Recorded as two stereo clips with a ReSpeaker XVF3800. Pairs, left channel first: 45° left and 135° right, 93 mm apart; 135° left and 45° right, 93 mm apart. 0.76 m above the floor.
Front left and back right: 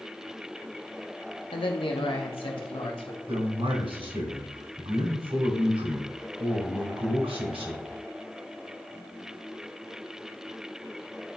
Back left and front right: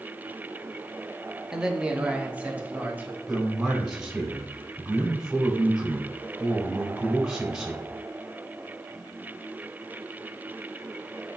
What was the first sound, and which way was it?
A man speaking, 35° left.